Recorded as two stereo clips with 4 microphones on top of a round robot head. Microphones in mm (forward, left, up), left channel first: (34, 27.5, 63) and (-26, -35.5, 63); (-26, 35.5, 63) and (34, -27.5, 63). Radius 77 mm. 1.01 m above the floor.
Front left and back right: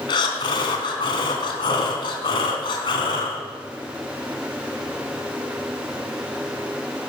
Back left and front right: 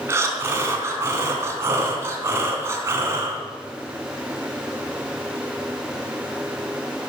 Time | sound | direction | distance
0.1 | breathing | 10° left | 2.5 m